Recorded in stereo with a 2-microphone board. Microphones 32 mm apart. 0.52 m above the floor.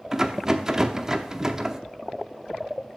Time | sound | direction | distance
0.1 | a rattle | 20° right (ahead or behind) | 0.8 m